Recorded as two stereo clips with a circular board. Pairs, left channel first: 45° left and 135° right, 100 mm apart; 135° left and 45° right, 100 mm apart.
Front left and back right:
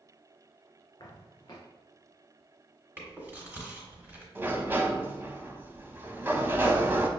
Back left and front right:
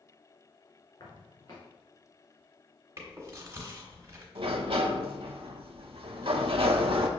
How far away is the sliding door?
About 0.5 m.